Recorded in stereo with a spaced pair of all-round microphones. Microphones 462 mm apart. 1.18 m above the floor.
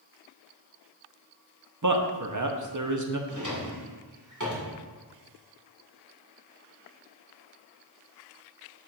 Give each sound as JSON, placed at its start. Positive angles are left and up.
{"t": 1.8, "sound": "a man speaking", "side_deg": -40, "distance_m": 0.8}
{"t": 3.3, "sound": "a drawer", "side_deg": -40, "distance_m": 1.8}